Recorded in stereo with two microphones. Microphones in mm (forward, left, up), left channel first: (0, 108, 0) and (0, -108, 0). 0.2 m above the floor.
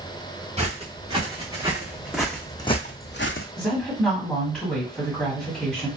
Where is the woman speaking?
5° left (ahead or behind), 1.5 m.